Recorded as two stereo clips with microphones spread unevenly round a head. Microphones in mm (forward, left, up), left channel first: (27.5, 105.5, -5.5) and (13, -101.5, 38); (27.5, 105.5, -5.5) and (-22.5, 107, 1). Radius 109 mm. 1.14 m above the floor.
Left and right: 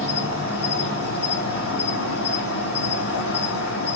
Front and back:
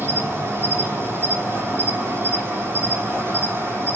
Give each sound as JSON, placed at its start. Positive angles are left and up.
{"t": 0.0, "sound": "an insect", "azimuth_deg": 135, "distance_m": 4.0}